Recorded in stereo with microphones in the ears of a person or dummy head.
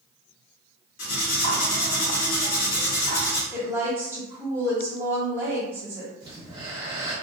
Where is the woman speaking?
15° right (ahead or behind), 1.5 m.